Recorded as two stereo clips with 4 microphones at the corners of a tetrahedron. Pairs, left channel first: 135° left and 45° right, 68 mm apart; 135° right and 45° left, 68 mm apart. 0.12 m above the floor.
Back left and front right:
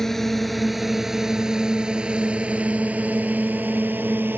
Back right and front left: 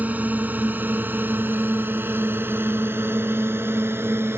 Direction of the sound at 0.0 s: 55° left.